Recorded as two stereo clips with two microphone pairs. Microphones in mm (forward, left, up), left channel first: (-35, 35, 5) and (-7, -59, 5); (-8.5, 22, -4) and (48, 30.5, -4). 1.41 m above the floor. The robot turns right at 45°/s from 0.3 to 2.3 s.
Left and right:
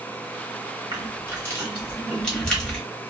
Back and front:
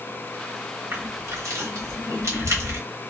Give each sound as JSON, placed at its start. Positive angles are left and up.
{"t": 0.9, "sound": "crushing", "azimuth_deg": -35, "distance_m": 1.1}